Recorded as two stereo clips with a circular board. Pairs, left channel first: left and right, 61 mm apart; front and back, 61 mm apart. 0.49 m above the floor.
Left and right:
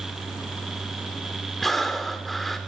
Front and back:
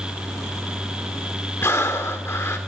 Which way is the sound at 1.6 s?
Straight ahead.